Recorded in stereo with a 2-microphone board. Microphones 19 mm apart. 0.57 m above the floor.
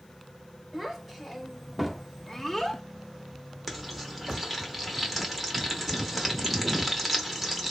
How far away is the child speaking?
About 1.8 m.